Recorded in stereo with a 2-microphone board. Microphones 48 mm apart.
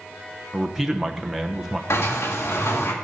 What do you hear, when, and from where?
0.5 s a man speaking: 5° right (ahead or behind), 1.0 m
1.9 s a sliding door: 75° left (ahead or behind), 1.9 m